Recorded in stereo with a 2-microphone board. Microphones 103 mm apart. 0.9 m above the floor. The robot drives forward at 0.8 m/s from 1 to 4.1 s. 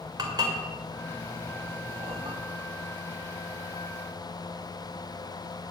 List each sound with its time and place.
0.2 s dishes clattering: 40° right (ahead or behind), 2.5 m; by 2.4 s 65° right (ahead or behind), 1.7 m